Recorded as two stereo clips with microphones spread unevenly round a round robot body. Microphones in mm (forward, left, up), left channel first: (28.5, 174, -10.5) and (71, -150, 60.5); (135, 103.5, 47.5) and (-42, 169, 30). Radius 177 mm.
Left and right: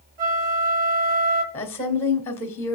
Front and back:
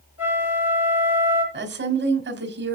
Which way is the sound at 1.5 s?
175° left.